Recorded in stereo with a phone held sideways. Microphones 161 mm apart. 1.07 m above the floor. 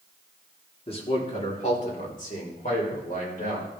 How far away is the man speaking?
About 1.9 m.